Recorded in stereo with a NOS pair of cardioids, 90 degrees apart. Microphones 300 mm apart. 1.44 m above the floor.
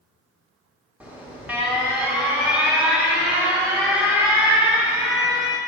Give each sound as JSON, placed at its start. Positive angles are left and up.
{"t": 1.0, "sound": "an alarm", "azimuth_deg": -5, "distance_m": 1.4}